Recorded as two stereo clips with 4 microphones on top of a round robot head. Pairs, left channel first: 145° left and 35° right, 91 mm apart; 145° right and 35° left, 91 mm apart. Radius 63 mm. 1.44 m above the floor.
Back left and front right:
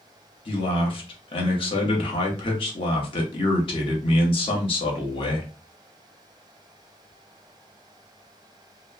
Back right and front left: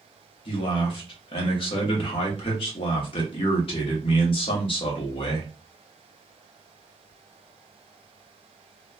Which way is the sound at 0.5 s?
Straight behind.